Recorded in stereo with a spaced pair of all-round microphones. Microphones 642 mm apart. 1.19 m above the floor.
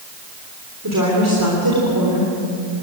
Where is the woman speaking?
30° right (ahead or behind), 3.5 m.